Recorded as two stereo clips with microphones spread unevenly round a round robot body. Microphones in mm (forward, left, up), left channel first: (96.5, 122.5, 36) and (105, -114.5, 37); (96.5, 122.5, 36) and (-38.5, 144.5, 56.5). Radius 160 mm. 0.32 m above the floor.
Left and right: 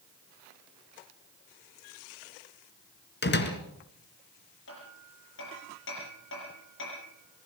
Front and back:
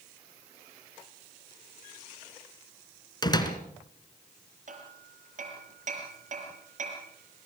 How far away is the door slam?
About 3 m.